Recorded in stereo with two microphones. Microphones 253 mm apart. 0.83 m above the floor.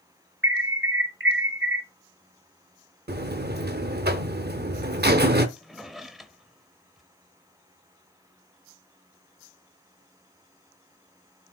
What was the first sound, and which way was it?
An alarm, 50° right (ahead or behind).